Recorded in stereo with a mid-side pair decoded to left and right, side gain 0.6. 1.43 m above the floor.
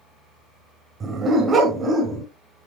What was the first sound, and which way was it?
A dog barking, 30° right.